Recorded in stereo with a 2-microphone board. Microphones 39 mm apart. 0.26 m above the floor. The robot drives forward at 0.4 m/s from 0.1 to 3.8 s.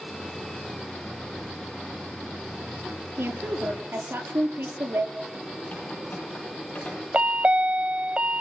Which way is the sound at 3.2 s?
65° right (ahead or behind).